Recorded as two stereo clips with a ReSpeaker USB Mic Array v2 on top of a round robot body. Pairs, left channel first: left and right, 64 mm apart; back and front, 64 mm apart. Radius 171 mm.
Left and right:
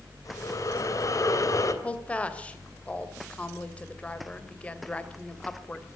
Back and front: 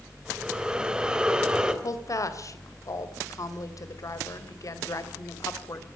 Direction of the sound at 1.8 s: 160° left.